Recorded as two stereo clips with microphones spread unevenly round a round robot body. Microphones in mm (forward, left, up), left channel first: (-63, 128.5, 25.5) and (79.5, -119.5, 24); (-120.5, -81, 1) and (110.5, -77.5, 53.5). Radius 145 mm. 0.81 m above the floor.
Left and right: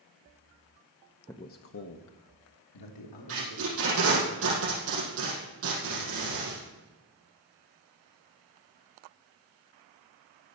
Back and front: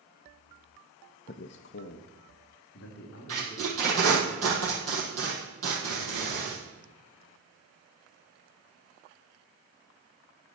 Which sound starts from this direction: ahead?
Tape being pulled, at 3.3 s.